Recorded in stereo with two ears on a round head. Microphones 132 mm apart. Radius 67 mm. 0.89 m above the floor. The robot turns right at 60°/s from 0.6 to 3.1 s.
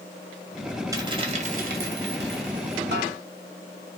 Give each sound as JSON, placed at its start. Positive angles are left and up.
{"t": 0.9, "sound": "a dropped coin", "azimuth_deg": -155, "distance_m": 2.5}
{"t": 2.9, "sound": "a snare drum", "side_deg": -85, "distance_m": 4.0}